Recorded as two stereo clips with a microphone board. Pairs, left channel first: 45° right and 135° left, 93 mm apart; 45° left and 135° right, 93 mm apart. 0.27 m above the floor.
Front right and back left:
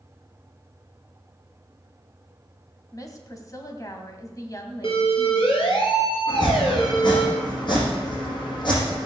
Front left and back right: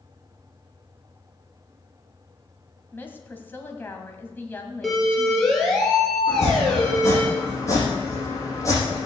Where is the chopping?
15° right, 8 m.